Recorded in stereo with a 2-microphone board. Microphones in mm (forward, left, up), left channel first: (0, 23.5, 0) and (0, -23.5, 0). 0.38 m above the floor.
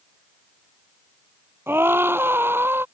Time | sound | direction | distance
1.7 | a scream | 55° right (ahead or behind) | ?